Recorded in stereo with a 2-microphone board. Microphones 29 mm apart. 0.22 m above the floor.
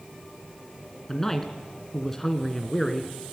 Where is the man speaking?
10° left (ahead or behind), 2 m.